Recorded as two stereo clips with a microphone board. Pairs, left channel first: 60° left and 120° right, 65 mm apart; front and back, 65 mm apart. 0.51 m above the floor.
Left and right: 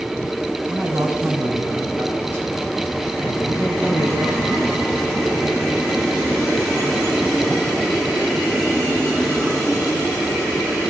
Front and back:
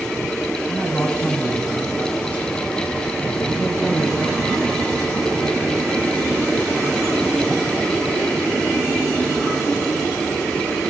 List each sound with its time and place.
0.7 s a man speaking: 65° right, 4 m